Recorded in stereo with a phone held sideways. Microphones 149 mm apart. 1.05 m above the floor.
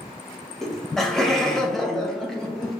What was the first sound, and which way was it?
Laughter, 5° left (ahead or behind).